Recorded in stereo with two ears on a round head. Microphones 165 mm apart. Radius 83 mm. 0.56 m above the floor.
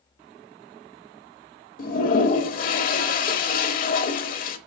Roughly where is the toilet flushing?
Left.